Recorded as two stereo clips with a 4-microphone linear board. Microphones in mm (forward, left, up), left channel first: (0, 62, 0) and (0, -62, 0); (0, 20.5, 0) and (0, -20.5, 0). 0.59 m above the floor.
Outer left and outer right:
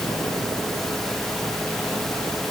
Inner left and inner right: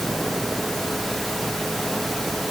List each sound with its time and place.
Only background noise.